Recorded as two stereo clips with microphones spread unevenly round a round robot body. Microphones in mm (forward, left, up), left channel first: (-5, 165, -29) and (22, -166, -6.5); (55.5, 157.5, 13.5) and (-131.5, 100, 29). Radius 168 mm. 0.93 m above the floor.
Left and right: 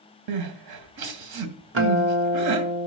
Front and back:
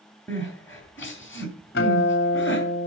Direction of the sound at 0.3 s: 70° right.